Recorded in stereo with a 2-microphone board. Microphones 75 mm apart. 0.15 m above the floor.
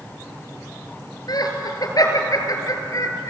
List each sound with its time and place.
1.3 s laughter: 60° left (ahead or behind), 3.5 m; by 3.3 s 45° left (ahead or behind), 3.5 m